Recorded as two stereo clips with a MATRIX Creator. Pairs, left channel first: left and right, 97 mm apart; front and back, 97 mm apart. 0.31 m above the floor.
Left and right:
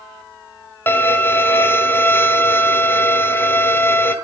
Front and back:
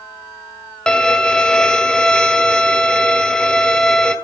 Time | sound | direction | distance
0.9 | a violin | 70° left | 1.3 m